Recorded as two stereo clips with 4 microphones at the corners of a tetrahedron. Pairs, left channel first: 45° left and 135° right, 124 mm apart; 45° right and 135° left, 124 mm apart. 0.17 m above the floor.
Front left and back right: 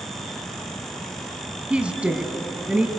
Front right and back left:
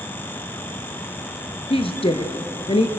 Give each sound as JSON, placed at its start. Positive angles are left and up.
{"t": 1.7, "sound": "a woman speaking", "azimuth_deg": -55, "distance_m": 1.5}